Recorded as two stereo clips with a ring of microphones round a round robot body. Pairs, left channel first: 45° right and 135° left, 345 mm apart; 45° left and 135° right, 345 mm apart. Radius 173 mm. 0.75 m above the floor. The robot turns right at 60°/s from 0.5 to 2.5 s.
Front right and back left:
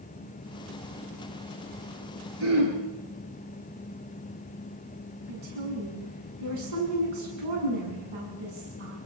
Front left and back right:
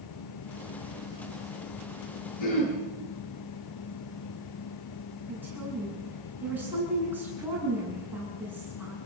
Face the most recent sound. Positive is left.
turn(degrees=140)